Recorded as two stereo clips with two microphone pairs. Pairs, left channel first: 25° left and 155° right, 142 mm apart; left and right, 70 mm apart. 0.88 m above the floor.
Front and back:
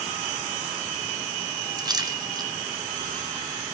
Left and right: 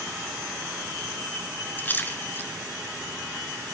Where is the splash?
150° left, 1.6 m.